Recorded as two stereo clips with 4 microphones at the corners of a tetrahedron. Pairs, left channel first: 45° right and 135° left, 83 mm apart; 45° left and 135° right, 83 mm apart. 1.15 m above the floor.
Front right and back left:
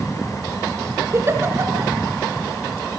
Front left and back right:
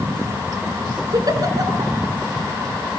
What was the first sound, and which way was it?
A giggle, 170° right.